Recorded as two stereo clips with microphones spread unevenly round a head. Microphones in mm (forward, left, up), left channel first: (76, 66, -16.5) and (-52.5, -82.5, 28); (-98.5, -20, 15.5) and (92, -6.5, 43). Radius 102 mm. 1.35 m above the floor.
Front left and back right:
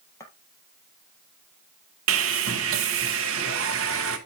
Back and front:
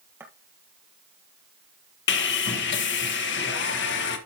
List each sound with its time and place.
0.2 s footsteps: 35° right, 1.4 m
2.1 s sawing: 155° right, 1.4 m